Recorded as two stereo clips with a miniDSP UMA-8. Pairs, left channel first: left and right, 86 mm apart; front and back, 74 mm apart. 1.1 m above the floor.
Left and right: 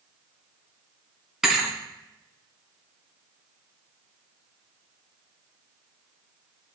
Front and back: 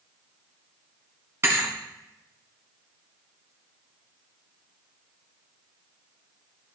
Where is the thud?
170° right, 1.2 m.